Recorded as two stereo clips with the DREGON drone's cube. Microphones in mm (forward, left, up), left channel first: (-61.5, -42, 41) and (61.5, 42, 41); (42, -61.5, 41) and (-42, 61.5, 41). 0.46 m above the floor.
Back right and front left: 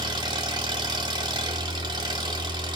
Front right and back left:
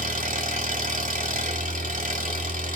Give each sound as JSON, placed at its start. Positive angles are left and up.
{"t": 0.0, "sound": "an engine running", "azimuth_deg": 95, "distance_m": 1.5}